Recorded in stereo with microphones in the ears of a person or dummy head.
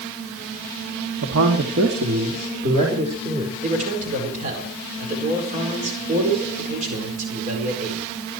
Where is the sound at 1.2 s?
75° right (ahead or behind), 2.5 m; by 3.5 s 30° right (ahead or behind), 5 m.